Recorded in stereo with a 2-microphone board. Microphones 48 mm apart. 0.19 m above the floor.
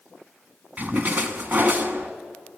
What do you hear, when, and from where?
0.8 s a splash: 40° right (ahead or behind), 1.2 m